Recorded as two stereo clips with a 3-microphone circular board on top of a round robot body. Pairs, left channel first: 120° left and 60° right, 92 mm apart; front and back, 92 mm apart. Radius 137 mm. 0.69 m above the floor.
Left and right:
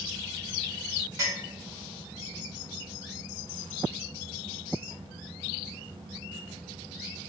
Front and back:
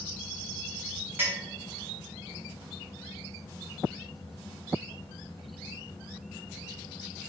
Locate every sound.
1.2 s a clink: 115° right, 1.1 m